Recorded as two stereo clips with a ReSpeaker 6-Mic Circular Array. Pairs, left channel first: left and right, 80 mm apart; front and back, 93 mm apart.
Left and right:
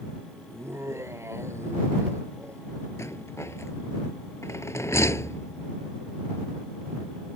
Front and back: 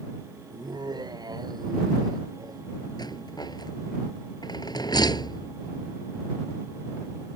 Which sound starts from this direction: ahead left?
A rattle, at 3.0 s.